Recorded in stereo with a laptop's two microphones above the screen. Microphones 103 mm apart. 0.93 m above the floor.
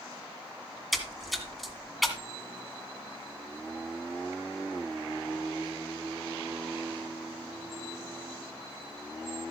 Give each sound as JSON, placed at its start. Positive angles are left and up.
{"t": 0.9, "sound": "a splash", "side_deg": 0, "distance_m": 1.8}